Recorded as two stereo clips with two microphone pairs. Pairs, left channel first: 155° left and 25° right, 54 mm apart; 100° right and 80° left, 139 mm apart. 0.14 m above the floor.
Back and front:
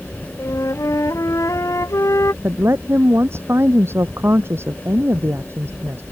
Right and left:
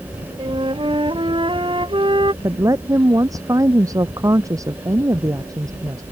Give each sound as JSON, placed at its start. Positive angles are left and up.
{"t": 0.4, "sound": "a flute", "azimuth_deg": 135}
{"t": 2.4, "sound": "a woman speaking", "azimuth_deg": 15}